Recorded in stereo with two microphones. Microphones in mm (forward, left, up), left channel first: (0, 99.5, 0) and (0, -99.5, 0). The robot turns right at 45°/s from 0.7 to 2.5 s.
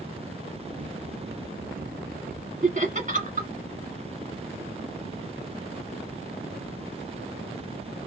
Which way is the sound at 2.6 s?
40° right (ahead or behind).